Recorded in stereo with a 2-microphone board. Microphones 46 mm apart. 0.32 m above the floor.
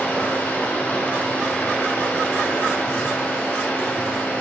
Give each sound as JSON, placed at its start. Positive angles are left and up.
{"t": 0.0, "sound": "running water", "side_deg": 40, "distance_m": 2.5}